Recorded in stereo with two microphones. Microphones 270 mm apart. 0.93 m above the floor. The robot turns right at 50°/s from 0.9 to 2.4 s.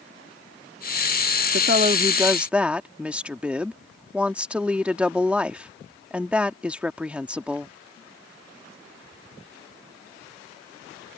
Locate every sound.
1.5 s a woman speaking: 45° right; by 7.8 s 5° right